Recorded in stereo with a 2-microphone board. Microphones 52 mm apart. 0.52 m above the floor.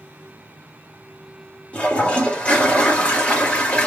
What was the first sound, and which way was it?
A toilet flushing, 25° left (ahead or behind).